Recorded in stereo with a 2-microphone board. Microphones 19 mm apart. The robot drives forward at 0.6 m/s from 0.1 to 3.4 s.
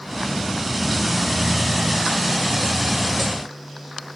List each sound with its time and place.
Only background noise.